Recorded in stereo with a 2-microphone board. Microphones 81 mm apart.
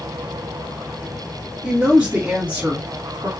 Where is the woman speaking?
5° right (ahead or behind), 1.8 m; by 3.3 s 20° right (ahead or behind), 1.4 m.